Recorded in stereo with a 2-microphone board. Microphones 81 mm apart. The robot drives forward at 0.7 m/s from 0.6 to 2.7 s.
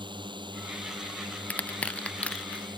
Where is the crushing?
15° left (ahead or behind).